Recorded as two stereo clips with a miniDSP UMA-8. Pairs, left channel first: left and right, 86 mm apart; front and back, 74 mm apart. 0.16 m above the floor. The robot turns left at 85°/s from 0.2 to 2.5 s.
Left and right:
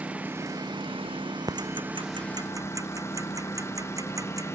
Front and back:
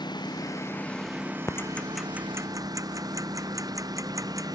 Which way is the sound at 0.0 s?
15° right.